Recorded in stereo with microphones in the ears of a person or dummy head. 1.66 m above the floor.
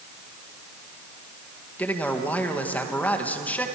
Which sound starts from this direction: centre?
A man speaking, at 1.8 s.